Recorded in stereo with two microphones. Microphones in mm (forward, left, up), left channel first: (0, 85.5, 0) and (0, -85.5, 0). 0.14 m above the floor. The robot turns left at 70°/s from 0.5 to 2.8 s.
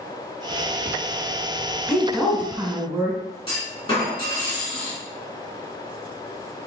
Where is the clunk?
30° left (ahead or behind), 1.7 m.